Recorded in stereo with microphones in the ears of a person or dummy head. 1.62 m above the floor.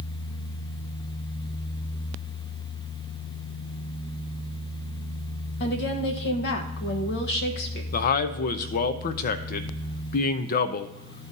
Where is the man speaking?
50° left (ahead or behind), 0.6 m.